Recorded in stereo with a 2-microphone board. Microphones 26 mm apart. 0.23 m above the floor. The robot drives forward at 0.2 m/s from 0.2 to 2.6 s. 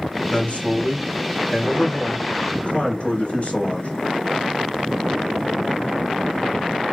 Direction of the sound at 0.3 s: 55° left (ahead or behind).